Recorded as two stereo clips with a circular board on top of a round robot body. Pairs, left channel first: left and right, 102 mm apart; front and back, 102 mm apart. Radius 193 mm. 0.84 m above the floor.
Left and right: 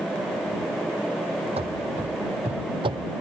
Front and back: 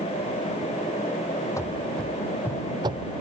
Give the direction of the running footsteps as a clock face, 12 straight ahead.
2 o'clock.